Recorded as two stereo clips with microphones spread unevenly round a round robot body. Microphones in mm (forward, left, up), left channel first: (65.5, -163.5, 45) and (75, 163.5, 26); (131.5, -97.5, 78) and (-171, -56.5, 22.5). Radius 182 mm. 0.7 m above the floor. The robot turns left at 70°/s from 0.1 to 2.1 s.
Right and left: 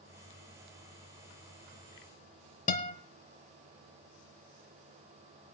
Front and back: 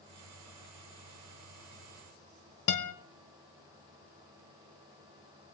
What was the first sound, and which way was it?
A guitar, 25° right.